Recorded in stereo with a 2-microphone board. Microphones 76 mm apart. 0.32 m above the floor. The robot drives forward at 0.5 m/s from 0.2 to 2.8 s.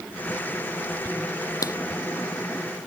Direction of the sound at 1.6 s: 50° left (ahead or behind).